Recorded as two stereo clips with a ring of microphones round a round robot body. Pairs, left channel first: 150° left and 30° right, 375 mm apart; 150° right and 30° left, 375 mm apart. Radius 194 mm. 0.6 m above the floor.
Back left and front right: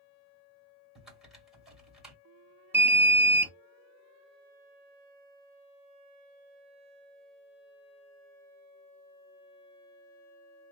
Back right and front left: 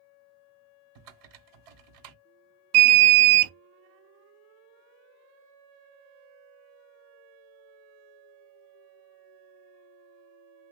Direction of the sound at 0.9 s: 60° left.